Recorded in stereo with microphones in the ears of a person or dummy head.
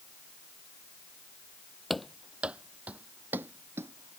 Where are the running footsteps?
Centre (ahead or behind); by 4.2 s 20° right (ahead or behind).